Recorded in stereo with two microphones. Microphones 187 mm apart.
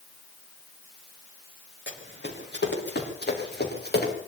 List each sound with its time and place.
1.9 s running footsteps: 65° left (ahead or behind), 5.5 m; by 4.1 s 55° left (ahead or behind), 5.5 m